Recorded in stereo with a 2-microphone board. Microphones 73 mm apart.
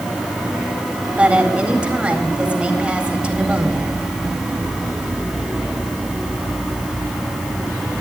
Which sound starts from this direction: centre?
A woman speaking, at 1.2 s.